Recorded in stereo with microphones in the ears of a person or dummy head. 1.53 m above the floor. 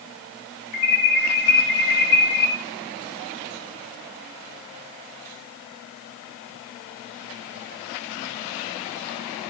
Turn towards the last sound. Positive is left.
turn(degrees=65)  # may be behind; listen again after turning